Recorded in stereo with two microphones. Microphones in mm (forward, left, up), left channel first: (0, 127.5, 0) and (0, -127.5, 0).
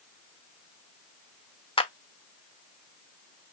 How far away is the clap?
About 0.8 m.